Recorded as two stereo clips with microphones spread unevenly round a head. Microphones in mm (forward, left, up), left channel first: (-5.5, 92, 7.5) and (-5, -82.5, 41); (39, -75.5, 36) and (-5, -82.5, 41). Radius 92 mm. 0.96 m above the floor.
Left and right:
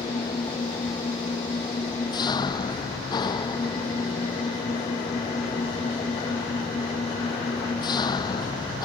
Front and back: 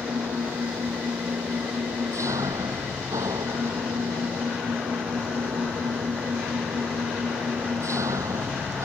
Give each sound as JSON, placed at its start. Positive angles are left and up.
{"t": 0.0, "sound": "an engine running", "azimuth_deg": 160}